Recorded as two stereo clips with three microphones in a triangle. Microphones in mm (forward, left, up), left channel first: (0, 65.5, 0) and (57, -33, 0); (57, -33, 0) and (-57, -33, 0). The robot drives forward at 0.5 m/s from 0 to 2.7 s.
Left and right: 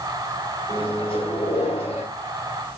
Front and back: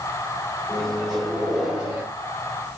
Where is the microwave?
85° left, 2 m; by 2.1 s 105° left, 2 m.